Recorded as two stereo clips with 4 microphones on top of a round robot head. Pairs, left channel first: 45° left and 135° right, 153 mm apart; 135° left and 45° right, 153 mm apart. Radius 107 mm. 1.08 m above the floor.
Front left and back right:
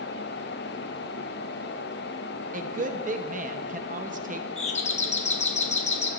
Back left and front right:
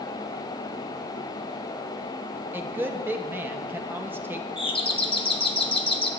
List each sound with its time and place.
2.5 s a woman speaking: 120° right, 0.8 m
4.6 s a doorbell: 85° left, 1.0 m